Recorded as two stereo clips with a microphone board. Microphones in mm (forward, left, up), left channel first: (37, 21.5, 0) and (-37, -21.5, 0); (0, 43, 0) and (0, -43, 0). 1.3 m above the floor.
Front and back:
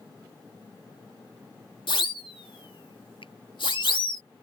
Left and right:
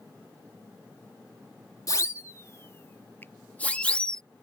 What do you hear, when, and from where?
1.9 s a siren: 45° left; by 4.2 s 10° left
3.2 s a finger snap: 25° left